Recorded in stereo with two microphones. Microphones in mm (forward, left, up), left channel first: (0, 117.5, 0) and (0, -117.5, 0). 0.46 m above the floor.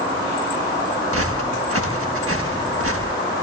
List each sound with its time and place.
1.1 s footsteps: 80° right, 5.5 m